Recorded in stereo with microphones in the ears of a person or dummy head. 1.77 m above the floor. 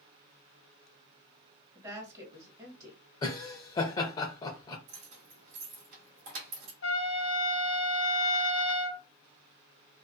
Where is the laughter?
25° left (ahead or behind), 0.6 m.